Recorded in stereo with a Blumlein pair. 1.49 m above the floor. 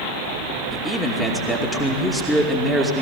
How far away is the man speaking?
About 2.5 m.